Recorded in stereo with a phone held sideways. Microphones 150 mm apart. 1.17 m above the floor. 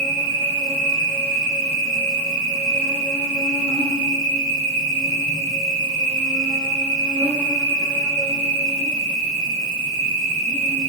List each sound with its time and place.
0.0 s an insect: 30° right (ahead or behind), 1.2 m